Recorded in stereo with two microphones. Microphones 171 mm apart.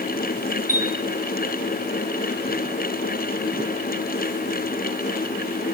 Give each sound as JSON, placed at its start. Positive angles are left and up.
{"t": 0.7, "sound": "a chime", "side_deg": 55, "distance_m": 1.6}